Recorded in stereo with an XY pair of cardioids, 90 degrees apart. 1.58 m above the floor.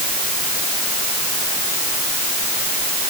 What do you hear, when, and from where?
Only background noise.